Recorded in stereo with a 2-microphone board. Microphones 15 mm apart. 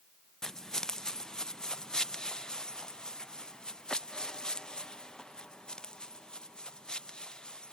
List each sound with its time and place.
0.4 s footsteps: 35° left (ahead or behind); by 7.7 s 60° left (ahead or behind)